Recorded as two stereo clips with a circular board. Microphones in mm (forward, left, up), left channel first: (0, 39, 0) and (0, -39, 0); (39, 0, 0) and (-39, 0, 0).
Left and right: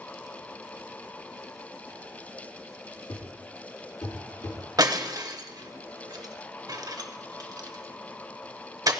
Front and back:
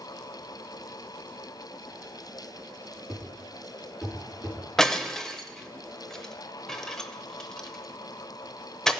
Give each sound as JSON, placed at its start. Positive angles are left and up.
{"t": 3.1, "sound": "a thud", "azimuth_deg": 90, "distance_m": 4.5}
{"t": 4.8, "sound": "breaking glass", "azimuth_deg": -85, "distance_m": 0.7}